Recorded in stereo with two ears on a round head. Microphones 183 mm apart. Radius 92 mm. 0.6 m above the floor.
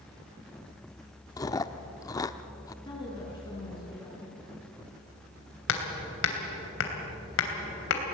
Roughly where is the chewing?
Centre.